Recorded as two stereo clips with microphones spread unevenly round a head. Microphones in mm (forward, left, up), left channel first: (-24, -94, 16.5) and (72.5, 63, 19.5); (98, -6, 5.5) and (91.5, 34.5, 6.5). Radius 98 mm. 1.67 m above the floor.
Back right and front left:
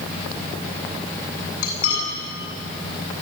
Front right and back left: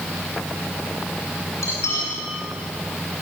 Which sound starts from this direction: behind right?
Cutlery clinking, at 1.6 s.